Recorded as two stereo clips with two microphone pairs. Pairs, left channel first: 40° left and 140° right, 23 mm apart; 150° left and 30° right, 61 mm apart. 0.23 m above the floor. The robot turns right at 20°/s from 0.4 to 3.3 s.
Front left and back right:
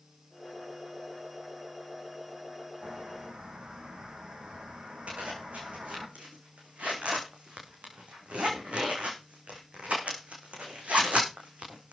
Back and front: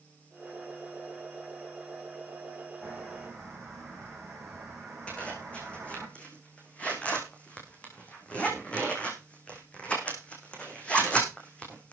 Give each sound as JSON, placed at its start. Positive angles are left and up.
{"t": 2.8, "sound": "a bird", "azimuth_deg": -130, "distance_m": 3.5}
{"t": 5.1, "sound": "a zipper", "azimuth_deg": -140, "distance_m": 4.5}